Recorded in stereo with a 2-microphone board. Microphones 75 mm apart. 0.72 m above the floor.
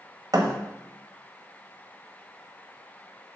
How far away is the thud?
About 1.2 m.